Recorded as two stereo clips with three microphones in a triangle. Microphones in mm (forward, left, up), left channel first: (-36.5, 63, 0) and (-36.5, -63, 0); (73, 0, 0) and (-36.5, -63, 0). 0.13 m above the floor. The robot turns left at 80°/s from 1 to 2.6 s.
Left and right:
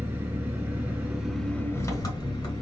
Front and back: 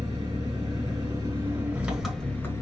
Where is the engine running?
155° right, 1.4 m; by 2.6 s 75° left, 1.4 m.